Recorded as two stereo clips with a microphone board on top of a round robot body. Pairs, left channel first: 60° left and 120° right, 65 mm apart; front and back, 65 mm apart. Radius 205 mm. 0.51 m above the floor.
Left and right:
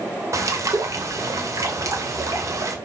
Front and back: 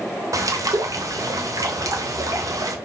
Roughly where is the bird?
Behind right.